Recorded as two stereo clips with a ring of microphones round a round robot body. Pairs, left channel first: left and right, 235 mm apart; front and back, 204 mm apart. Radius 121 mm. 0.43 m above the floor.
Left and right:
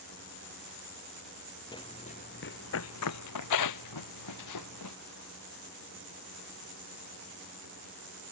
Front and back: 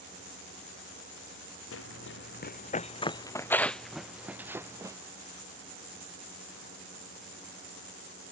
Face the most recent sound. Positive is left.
turn(degrees=105)